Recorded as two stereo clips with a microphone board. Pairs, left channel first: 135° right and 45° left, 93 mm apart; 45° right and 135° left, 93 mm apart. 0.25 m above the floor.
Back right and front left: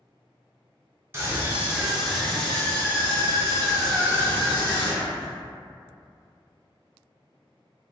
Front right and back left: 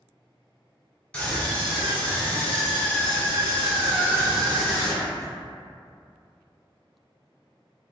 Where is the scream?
20° left, 1.1 m; by 5.3 s 120° right, 1.9 m.